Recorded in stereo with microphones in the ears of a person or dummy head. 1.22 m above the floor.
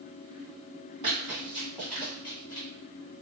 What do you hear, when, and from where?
1.0 s running footsteps: 25° right (ahead or behind), 1.4 m; by 2.7 s 25° left (ahead or behind), 1.3 m